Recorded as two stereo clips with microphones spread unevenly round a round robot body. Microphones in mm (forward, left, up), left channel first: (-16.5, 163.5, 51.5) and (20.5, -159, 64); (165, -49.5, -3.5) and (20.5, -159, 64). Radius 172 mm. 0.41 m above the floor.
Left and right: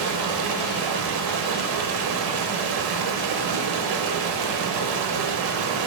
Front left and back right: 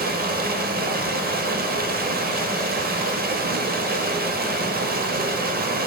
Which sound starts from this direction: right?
Running water, at 0.0 s.